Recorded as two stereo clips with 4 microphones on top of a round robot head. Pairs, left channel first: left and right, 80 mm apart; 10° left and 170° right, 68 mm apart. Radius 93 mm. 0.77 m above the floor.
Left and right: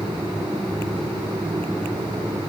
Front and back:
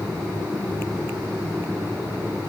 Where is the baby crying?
I don't hear a baby crying.